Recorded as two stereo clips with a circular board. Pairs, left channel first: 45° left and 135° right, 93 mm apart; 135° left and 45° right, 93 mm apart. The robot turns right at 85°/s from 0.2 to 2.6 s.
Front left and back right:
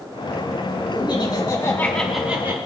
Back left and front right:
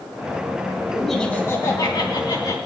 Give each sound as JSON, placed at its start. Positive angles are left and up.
{"t": 0.9, "sound": "laughter", "azimuth_deg": 35, "distance_m": 2.5}